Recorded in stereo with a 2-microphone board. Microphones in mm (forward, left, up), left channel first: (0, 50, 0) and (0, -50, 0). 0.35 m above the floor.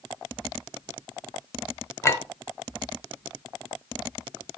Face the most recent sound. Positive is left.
turn(degrees=30)  # may be behind; listen again after turning